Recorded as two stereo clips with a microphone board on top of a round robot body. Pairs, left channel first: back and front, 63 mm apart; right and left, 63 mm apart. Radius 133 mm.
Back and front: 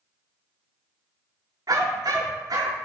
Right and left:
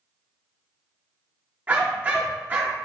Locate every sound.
1.7 s a dog barking: 30° left, 4.5 m